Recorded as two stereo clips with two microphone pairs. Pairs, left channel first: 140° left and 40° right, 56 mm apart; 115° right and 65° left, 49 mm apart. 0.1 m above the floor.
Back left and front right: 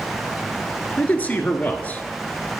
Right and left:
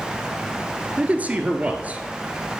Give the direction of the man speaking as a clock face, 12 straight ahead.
9 o'clock.